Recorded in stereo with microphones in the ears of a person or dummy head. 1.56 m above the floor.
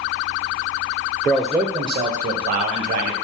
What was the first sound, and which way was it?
A man speaking, 10° left (ahead or behind).